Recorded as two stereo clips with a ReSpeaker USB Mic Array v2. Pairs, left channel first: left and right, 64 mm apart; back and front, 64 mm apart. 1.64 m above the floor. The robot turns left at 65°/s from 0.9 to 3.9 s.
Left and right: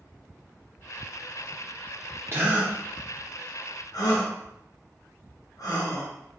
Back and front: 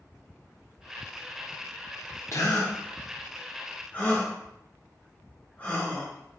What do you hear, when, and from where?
2.3 s a gasp: 140° right, 1.1 m; by 6.1 s 115° left, 1.1 m